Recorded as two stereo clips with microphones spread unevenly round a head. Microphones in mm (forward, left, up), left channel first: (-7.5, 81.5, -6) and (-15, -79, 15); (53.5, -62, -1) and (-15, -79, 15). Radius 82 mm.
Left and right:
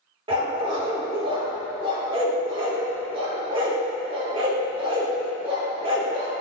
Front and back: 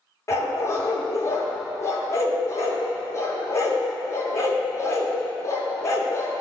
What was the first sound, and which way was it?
A dog barking, 40° right.